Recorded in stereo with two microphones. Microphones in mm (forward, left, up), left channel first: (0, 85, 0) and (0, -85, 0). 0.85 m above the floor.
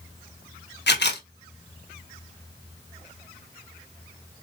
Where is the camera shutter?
85° left, 0.9 m.